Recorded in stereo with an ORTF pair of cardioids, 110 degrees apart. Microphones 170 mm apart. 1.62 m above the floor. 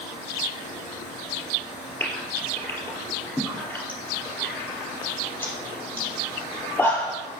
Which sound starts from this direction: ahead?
A gasp, at 2.0 s.